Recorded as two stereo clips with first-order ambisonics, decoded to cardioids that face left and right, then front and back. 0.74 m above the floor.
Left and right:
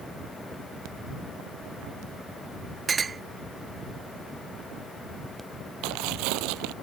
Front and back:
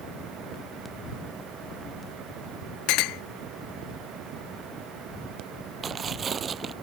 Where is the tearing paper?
110° right.